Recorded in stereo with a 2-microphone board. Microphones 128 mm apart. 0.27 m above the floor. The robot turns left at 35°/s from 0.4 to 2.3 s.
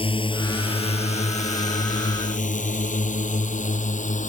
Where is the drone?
45° left (ahead or behind); by 4.3 s 75° left (ahead or behind).